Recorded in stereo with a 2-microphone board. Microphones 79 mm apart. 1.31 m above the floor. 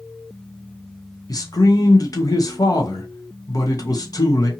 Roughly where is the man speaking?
Left.